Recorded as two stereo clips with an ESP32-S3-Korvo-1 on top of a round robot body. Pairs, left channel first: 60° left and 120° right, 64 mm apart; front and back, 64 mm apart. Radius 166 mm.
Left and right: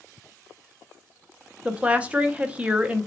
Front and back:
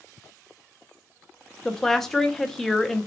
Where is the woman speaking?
80° right, 0.9 m.